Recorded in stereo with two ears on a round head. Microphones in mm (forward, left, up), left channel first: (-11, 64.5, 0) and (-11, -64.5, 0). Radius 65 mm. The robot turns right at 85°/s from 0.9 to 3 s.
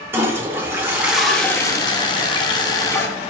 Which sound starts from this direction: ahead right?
A toilet flushing, at 0.1 s.